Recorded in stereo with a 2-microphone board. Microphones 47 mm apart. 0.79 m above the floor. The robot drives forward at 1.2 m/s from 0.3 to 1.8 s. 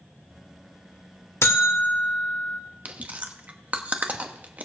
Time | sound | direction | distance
1.4 | a buzzer | 65° left (ahead or behind) | 0.9 m
2.9 | chewing | 30° right (ahead or behind) | 0.9 m